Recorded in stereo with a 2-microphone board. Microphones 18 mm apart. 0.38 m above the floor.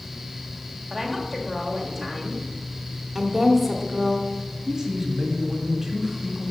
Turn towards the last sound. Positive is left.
turn(degrees=-30)  # may be behind; listen again after turning